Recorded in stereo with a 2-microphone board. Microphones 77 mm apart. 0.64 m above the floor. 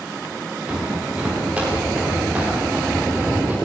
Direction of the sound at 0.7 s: 15° right (ahead or behind).